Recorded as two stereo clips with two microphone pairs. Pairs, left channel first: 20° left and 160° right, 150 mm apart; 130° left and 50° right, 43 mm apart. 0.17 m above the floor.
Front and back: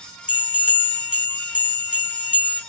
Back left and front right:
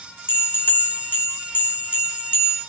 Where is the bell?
165° left, 2.5 m.